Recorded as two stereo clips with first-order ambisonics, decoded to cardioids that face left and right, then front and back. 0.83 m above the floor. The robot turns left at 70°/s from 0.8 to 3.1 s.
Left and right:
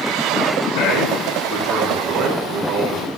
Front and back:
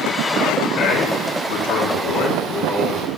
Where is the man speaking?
45° left, 6.5 m; by 3.1 s 110° right, 6.5 m.